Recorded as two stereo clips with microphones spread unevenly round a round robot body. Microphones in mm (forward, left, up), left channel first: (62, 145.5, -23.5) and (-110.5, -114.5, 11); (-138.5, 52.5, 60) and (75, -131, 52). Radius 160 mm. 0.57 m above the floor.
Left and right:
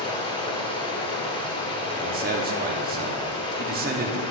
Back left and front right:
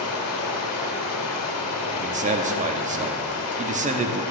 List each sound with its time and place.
0.0 s running water: 125° left, 1.3 m
1.9 s a man speaking: 75° right, 0.7 m